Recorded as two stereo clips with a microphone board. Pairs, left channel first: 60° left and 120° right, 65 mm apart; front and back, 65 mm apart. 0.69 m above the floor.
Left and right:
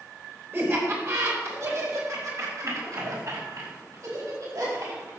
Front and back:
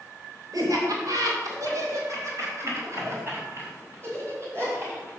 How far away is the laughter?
About 3.5 m.